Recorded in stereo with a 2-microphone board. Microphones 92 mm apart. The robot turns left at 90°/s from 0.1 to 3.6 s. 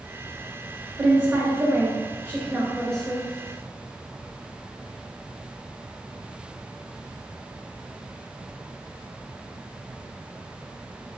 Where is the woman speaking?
10° right (ahead or behind), 1.6 m; by 3.3 s 20° left (ahead or behind), 1.6 m.